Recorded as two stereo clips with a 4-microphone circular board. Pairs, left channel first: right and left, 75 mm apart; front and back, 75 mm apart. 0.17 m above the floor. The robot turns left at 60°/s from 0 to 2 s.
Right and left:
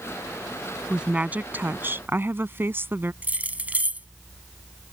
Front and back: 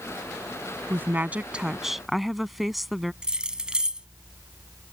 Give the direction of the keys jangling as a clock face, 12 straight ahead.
8 o'clock.